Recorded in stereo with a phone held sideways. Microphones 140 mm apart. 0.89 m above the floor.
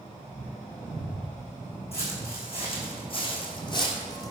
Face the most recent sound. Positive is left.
turn(degrees=25)  # may be behind; listen again after turning